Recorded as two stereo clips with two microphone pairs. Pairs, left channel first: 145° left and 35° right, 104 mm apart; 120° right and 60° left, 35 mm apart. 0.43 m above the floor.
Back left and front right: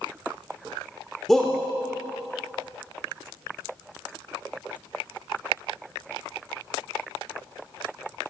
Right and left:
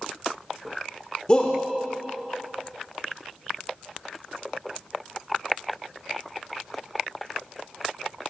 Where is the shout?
130° right, 0.8 m.